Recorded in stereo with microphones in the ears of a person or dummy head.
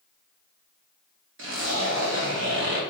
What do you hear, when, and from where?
1.4 s a zipper: 65° right (ahead or behind), 1.5 m